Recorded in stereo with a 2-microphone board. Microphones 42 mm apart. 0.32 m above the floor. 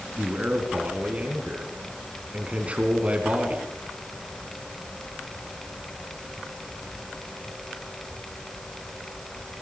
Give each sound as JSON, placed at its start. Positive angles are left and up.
{"t": 0.2, "sound": "a man speaking", "side_deg": -30, "distance_m": 4.0}